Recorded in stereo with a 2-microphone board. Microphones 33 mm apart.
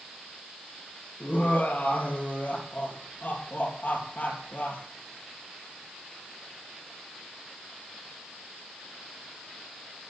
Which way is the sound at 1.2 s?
55° left (ahead or behind).